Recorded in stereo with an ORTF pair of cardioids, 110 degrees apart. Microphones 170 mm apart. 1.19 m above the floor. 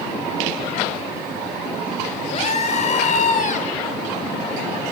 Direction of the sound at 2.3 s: 40° left.